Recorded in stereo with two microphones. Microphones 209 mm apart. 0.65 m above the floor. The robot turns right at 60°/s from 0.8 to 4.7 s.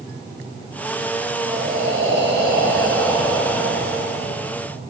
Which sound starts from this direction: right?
Breathing, at 1.4 s.